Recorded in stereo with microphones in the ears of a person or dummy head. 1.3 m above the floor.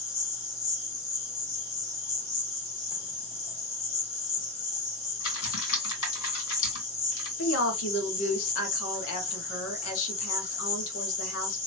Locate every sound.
0.0 s an insect: 20° left (ahead or behind), 1.5 m
5.2 s typing on a keyboard: 80° left, 2 m
7.4 s a woman speaking: 80° left, 1.4 m